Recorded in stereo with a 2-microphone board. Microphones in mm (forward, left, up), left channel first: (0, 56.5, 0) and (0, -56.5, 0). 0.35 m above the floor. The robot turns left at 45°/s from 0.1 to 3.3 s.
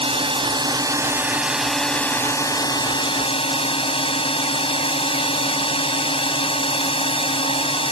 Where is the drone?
110° right; by 7.9 s 110° left.